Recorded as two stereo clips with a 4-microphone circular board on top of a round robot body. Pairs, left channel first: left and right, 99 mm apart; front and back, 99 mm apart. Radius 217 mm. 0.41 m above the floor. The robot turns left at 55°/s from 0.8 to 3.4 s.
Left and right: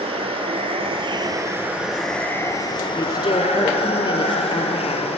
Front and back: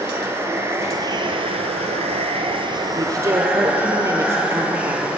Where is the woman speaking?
145° left, 2 m; by 5.1 s 120° left, 2 m.